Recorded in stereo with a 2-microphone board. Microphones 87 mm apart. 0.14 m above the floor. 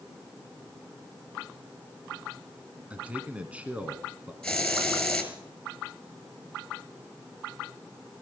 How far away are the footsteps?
I don't hear footsteps.